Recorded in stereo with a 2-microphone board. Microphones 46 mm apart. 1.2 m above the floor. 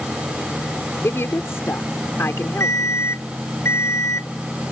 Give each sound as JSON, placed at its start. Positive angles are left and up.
{"t": 1.0, "sound": "a woman speaking", "side_deg": 70}
{"t": 2.6, "sound": "an alarm clock", "side_deg": 80}